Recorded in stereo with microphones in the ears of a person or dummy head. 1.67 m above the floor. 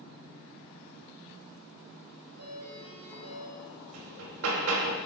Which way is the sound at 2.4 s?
90° right.